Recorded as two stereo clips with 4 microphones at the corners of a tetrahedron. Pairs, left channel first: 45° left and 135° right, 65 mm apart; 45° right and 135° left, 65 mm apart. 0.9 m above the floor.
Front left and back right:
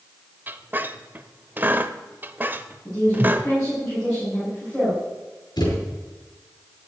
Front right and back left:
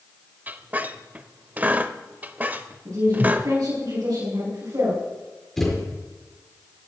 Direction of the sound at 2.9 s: 115° left.